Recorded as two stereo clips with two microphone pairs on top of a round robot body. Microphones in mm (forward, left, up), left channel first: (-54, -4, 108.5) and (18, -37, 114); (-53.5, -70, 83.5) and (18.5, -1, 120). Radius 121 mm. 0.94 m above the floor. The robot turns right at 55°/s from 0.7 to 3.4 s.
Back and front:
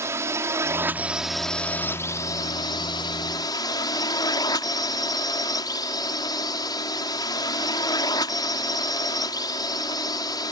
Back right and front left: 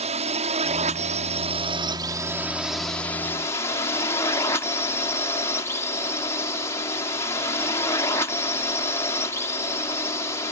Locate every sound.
0.0 s a drone: 30° left; by 10.5 s straight behind